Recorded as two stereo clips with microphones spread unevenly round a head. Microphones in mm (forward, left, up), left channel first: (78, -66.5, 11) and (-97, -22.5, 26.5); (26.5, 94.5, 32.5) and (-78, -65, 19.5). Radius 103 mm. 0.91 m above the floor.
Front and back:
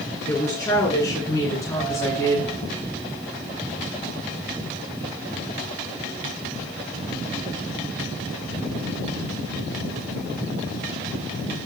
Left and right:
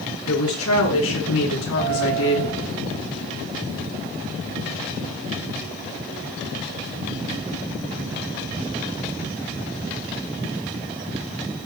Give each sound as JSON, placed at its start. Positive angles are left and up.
{"t": 0.3, "sound": "a woman speaking", "azimuth_deg": 60, "distance_m": 10.0}